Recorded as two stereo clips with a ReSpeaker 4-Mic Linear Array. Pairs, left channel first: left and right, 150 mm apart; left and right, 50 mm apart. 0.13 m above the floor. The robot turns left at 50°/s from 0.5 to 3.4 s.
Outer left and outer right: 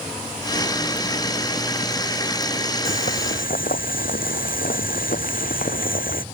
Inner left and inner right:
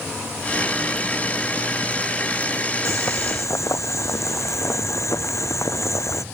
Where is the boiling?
75° left (ahead or behind); by 6.2 s 70° left (ahead or behind).